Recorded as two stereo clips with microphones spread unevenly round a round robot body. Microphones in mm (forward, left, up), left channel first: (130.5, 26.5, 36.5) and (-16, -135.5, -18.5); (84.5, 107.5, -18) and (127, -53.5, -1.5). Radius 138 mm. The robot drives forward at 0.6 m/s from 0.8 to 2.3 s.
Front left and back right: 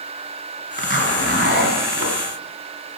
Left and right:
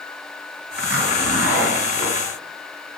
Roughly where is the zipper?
Right.